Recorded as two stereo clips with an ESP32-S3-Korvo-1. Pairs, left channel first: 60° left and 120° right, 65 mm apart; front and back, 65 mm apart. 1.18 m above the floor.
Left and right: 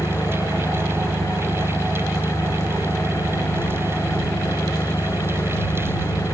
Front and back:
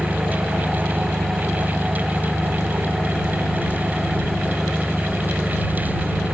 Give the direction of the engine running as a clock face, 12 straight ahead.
9 o'clock.